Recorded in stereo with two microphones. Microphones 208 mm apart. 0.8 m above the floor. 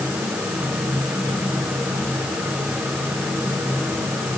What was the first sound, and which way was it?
Only background noise.